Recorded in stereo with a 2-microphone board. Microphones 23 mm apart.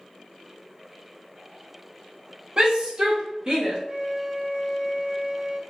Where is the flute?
70° right (ahead or behind), 0.7 m.